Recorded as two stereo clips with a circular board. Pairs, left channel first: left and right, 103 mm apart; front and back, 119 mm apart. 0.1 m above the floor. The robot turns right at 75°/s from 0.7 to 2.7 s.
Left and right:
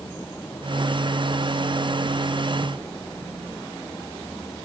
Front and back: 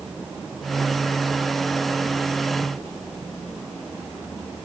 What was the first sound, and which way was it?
Only background noise.